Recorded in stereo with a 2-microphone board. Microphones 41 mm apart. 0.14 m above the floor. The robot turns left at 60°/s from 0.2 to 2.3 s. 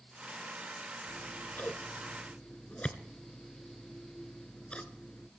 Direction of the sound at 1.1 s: 45° left (ahead or behind).